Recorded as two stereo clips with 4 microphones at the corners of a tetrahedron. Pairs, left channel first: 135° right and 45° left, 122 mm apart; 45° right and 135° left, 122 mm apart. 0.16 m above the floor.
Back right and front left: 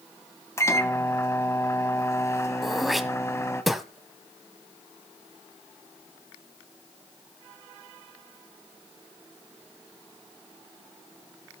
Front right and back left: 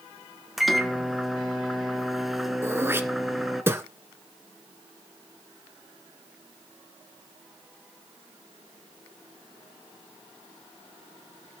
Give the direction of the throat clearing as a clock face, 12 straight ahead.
8 o'clock.